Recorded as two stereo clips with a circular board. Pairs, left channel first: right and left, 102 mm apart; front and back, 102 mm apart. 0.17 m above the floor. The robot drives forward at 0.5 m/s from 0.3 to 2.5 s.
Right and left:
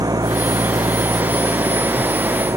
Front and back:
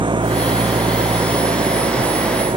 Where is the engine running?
140° left; by 2.6 s 150° left.